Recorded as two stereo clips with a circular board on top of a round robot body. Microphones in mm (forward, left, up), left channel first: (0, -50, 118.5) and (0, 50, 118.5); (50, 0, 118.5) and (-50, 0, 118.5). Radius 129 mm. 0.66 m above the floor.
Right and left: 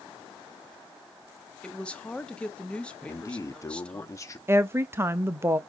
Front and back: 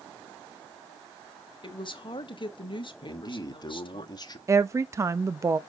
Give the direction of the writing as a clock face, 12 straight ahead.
No writing in this recording.